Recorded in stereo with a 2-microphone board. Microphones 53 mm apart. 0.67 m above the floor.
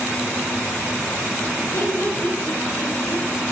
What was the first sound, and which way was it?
Laughter, 80° left.